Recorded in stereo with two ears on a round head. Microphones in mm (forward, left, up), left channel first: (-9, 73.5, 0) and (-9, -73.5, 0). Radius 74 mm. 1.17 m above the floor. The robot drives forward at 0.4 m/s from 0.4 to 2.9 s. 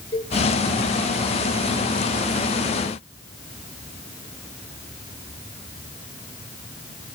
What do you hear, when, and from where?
0.1 s a cowbell: 35° left (ahead or behind), 2.5 m